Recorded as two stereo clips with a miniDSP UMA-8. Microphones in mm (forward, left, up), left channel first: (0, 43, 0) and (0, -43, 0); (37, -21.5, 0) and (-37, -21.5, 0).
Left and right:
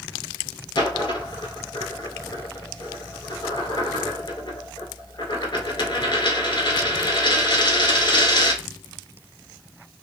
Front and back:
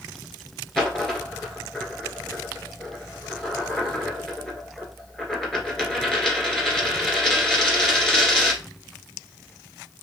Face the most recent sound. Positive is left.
turn(degrees=80)